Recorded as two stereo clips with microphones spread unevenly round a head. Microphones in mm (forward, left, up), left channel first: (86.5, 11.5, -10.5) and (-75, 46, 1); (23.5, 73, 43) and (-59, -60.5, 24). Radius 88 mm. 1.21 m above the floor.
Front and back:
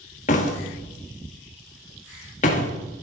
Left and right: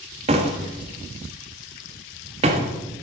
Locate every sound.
0.3 s a door slam: 65° right, 1.5 m